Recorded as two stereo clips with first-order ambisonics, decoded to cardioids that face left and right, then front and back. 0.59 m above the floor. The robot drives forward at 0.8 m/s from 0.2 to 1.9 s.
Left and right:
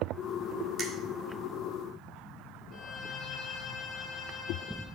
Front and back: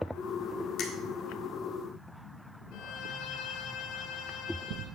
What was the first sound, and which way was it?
A finger snap, 35° right.